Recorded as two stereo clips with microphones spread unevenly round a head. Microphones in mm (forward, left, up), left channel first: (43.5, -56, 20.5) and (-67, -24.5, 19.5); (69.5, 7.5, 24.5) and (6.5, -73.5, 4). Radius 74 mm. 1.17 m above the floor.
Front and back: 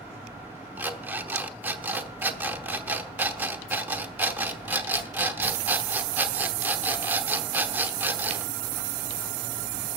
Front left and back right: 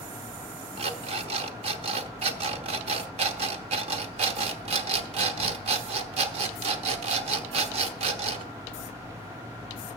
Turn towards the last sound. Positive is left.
turn(degrees=-125)